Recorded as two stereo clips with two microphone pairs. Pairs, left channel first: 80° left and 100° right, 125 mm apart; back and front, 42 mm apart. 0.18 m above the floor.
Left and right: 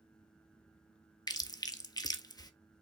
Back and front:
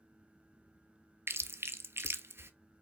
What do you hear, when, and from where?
1.3 s chewing: 25° left, 0.5 m